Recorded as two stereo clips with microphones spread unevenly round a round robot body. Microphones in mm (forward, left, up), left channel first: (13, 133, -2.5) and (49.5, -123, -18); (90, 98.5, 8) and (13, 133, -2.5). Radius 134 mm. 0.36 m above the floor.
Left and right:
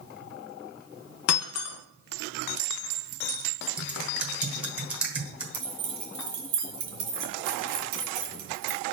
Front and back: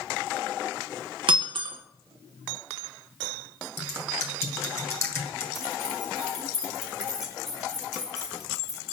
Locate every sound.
1.3 s breaking glass: 140° left, 1.3 m
3.8 s typing on a keyboard: 10° right, 1.2 m
5.5 s keys jangling: 135° right, 2.5 m